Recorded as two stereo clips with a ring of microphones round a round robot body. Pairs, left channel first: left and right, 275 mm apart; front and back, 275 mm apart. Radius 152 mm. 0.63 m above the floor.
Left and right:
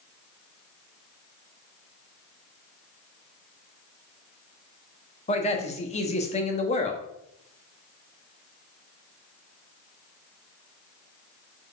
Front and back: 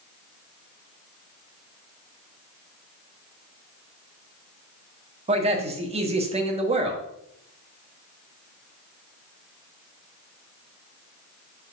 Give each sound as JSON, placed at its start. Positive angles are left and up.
{"t": 5.3, "sound": "a man speaking", "azimuth_deg": 135, "distance_m": 1.2}